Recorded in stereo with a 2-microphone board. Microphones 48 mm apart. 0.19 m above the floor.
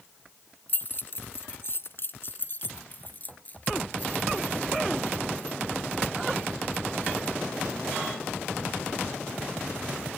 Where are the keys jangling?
40° left (ahead or behind); by 10.1 s 20° left (ahead or behind).